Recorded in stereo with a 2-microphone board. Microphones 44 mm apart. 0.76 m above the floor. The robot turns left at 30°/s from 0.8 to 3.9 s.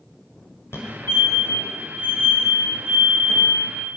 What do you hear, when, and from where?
0.7 s a fire alarm: 70° left (ahead or behind), 5.5 m; by 3.4 s 5° left (ahead or behind), 5.5 m